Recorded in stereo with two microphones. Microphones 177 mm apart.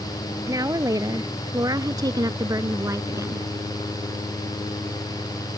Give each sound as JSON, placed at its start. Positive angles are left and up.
{"t": 0.5, "sound": "a woman speaking", "side_deg": -20}